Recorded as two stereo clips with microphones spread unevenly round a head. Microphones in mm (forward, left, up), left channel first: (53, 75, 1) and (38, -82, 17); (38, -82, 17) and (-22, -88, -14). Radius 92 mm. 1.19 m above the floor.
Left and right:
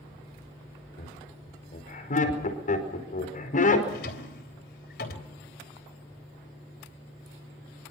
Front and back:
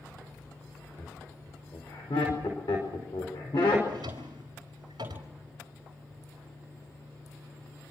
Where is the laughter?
50° left, 5 m.